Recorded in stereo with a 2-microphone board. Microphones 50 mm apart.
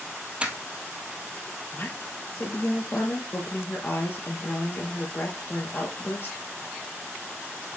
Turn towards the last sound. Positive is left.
turn(degrees=50)  # may be behind; listen again after turning